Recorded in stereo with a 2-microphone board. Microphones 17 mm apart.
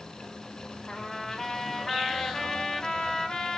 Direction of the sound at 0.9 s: 40° left (ahead or behind).